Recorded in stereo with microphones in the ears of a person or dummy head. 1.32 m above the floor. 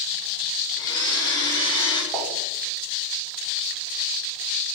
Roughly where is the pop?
Centre.